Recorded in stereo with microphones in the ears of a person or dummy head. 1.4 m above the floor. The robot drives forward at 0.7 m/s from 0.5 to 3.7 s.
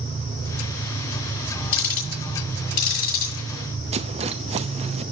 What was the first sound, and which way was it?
Ticking, 50° left (ahead or behind).